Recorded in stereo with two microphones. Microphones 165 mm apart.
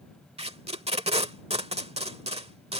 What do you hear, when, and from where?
0.4 s tape being pulled: 40° right (ahead or behind)